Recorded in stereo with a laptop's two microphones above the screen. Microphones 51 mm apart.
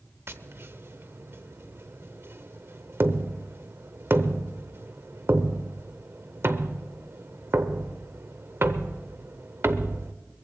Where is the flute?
No flute in this recording.